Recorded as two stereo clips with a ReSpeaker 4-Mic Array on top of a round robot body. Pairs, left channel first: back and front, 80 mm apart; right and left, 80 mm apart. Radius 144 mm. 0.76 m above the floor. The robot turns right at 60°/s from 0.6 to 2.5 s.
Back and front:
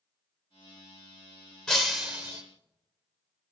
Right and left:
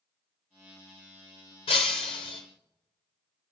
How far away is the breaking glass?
About 0.6 m.